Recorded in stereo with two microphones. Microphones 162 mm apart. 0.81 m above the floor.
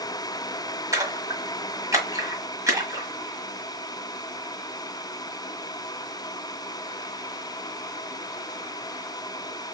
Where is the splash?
20° right (ahead or behind), 1.6 m.